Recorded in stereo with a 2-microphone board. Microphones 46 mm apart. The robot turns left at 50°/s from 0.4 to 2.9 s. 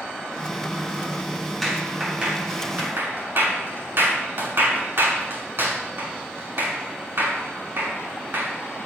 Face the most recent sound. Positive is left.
turn(degrees=-55)  # may be behind; listen again after turning